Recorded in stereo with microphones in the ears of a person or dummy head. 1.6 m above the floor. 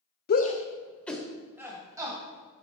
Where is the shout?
50° left (ahead or behind), 0.8 m; by 2.6 s 30° right (ahead or behind), 2 m.